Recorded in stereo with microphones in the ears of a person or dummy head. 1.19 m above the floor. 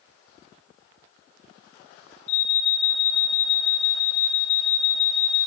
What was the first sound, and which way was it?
An alarm, 45° left (ahead or behind).